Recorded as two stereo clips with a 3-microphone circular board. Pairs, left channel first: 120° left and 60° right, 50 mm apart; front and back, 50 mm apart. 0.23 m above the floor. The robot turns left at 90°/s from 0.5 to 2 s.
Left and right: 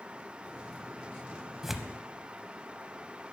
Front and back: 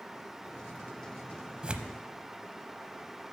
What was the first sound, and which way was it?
Tearing paper, 135° right.